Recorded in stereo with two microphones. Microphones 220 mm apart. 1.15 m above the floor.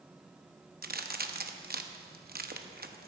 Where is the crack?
45° right (ahead or behind), 0.7 m.